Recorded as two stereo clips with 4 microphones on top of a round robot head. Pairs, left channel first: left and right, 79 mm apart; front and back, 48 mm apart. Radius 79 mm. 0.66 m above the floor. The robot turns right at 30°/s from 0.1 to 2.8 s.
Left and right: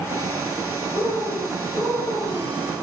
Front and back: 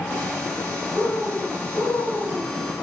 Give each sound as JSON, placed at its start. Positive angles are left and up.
{"t": 0.9, "sound": "a bird", "azimuth_deg": -70, "distance_m": 4.0}